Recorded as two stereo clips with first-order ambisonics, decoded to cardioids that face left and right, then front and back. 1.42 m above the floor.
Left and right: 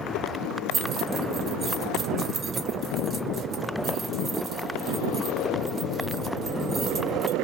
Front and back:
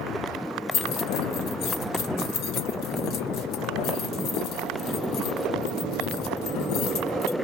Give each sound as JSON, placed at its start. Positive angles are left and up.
{"t": 0.7, "sound": "keys jangling", "azimuth_deg": -30, "distance_m": 1.1}